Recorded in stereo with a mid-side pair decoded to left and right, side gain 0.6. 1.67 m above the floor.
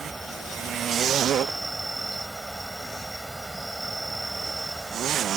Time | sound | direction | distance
0.0 | an insect | 15° right | ?